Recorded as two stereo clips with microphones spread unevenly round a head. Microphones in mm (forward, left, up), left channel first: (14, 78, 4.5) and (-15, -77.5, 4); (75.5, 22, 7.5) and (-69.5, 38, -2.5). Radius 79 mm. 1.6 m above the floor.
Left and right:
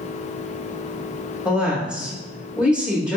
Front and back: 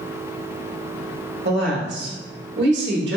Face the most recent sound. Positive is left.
turn(degrees=175)